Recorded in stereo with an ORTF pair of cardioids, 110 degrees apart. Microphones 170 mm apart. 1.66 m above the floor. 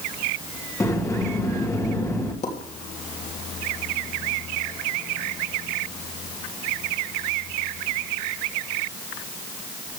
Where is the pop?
45° left, 3 m.